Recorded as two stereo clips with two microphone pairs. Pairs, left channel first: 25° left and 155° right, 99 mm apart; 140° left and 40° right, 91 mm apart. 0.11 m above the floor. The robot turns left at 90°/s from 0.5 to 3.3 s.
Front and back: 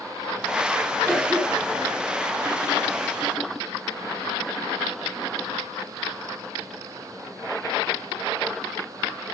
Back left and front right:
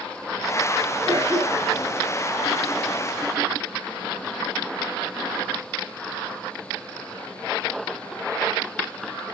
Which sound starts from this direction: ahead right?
A cough, at 1.1 s.